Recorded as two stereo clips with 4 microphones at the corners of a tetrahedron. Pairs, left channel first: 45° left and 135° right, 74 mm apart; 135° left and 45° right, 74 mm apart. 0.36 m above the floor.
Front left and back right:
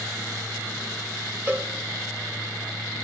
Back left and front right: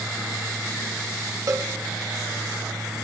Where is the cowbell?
75° right, 1.0 m.